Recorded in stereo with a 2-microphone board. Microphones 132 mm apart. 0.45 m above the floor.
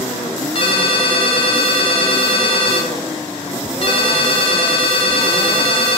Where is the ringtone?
45° left (ahead or behind), 0.7 m.